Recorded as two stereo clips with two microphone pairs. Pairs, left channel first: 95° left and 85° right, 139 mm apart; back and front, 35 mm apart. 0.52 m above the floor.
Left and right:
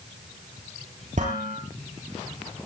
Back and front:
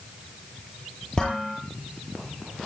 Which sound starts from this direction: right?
Dishes clattering, at 1.2 s.